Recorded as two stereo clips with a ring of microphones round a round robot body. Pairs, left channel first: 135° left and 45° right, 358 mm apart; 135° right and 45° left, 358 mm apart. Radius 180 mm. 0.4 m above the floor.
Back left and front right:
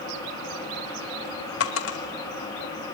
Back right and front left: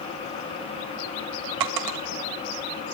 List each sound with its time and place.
1.6 s a dropped coin: 80° left, 1.6 m